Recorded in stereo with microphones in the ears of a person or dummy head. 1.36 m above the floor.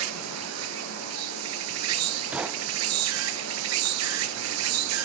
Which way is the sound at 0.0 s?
75° right (ahead or behind).